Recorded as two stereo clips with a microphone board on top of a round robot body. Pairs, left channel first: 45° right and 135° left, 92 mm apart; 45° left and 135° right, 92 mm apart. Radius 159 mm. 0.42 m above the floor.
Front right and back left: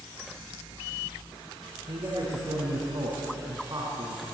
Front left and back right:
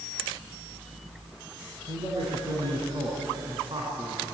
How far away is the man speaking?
About 5 m.